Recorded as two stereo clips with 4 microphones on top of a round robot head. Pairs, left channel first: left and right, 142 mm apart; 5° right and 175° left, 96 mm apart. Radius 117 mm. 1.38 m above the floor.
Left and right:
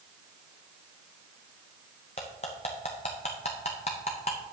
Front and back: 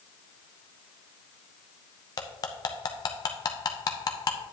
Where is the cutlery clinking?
35° left, 0.6 m.